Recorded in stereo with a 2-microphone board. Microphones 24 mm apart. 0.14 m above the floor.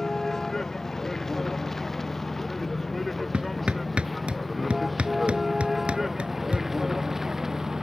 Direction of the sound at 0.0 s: 20° left (ahead or behind).